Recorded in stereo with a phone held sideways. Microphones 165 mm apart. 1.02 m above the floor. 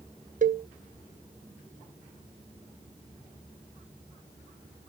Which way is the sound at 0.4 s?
55° right (ahead or behind).